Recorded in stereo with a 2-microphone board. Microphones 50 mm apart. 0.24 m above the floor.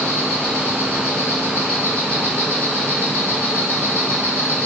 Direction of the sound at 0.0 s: 35° left (ahead or behind).